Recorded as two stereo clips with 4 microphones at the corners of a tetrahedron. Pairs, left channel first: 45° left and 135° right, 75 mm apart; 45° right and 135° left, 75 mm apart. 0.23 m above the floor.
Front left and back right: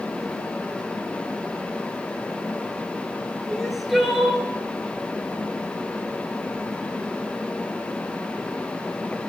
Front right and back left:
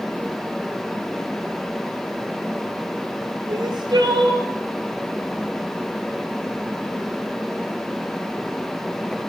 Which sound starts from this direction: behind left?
Crying, at 3.5 s.